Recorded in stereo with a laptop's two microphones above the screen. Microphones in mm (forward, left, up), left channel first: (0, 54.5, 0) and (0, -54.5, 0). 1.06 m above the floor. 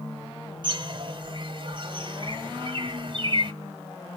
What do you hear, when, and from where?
0.6 s a bird: 45° right (ahead or behind), 0.9 m